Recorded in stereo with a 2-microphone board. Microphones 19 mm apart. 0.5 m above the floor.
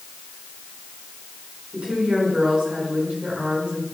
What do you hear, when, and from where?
1.7 s a woman speaking: 75° right (ahead or behind), 6 m